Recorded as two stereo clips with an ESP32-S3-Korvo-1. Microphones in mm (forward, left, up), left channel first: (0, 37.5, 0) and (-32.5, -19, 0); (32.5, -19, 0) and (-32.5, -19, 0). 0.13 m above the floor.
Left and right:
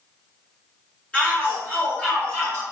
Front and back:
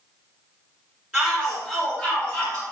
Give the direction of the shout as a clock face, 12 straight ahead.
8 o'clock.